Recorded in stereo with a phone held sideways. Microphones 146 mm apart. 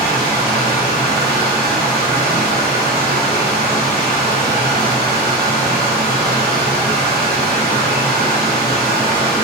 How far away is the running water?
About 0.9 m.